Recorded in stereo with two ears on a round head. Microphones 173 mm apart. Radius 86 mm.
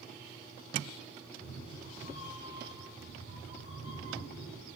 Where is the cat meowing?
55° left (ahead or behind), 2.5 m; by 4.6 s 65° left (ahead or behind), 3.5 m.